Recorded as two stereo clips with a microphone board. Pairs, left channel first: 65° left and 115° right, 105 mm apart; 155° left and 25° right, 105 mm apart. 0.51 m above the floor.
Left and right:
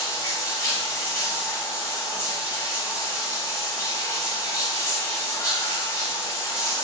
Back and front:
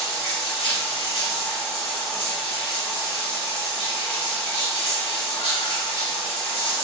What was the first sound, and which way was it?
Running water, 130° left.